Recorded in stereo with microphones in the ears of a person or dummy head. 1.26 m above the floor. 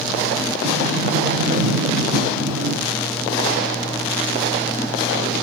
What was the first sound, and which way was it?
A sliding door, 50° right (ahead or behind).